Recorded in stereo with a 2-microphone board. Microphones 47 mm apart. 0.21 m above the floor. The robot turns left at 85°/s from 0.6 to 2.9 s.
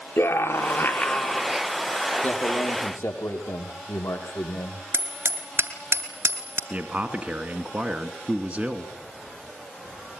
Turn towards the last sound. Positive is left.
turn(degrees=-25)  # may be behind; listen again after turning